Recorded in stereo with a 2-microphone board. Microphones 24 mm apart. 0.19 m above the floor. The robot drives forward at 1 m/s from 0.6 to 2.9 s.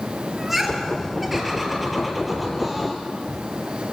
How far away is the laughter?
About 4.5 m.